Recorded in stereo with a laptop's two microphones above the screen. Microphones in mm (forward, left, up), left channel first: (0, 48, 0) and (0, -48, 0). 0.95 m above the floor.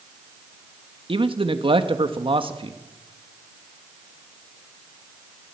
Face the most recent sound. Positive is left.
turn(degrees=-60)  # may be behind; listen again after turning